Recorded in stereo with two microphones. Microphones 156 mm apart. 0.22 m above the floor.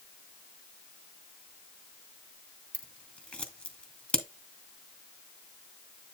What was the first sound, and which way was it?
Scissors, 10° left (ahead or behind).